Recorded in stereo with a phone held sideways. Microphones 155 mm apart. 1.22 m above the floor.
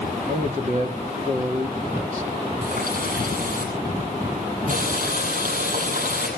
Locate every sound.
0.3 s a man speaking: 55° right (ahead or behind), 2 m
2.6 s a running tap: 65° right (ahead or behind), 8 m